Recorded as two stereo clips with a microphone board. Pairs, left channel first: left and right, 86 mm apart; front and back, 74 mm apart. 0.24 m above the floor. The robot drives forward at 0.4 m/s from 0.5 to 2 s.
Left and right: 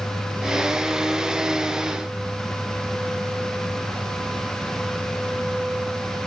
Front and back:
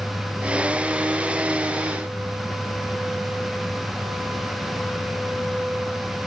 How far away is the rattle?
I don't hear a rattle.